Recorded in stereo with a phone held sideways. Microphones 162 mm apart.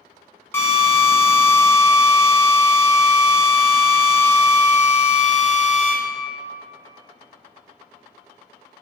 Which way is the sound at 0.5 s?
15° left (ahead or behind).